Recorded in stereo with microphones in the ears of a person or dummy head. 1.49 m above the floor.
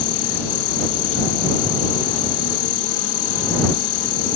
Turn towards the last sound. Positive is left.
turn(degrees=70)  # may be behind; listen again after turning